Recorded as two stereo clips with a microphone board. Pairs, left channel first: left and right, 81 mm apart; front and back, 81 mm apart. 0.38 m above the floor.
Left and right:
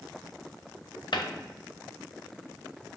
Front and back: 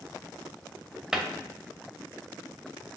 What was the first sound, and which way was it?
A cupboard door, 100° left.